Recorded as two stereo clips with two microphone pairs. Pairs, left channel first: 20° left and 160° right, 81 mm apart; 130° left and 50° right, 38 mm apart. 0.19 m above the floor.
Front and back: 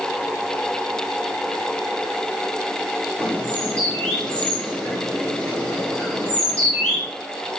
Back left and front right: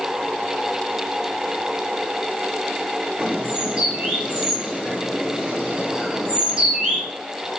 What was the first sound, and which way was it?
A bird, 40° right.